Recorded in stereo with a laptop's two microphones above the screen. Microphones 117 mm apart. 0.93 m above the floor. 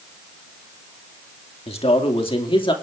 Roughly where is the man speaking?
Left.